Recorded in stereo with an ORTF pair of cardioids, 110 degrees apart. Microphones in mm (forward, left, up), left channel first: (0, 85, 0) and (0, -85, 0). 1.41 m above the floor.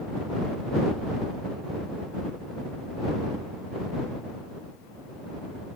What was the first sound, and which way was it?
Only background noise.